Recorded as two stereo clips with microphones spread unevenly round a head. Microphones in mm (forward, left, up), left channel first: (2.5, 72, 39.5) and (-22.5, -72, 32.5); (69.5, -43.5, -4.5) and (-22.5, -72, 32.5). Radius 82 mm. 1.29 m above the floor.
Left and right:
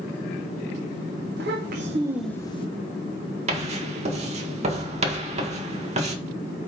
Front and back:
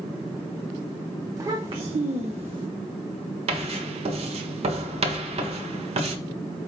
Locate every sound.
1.4 s a child speaking: 115° right, 1.2 m; by 2.7 s 135° left, 1.0 m
3.5 s writing: 145° right, 1.4 m